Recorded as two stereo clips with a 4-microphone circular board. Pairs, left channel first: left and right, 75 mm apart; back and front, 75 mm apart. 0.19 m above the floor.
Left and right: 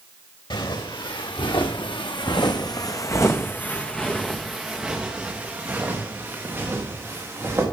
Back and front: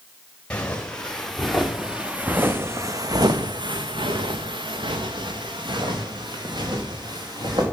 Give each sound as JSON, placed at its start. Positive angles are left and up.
{"t": 0.5, "sound": "footsteps", "azimuth_deg": 105, "distance_m": 2.0}